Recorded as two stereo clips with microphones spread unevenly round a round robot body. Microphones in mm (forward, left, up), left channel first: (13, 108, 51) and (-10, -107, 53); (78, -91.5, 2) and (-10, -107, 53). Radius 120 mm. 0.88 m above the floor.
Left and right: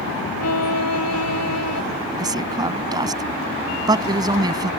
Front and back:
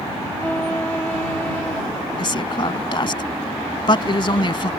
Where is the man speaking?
25° right.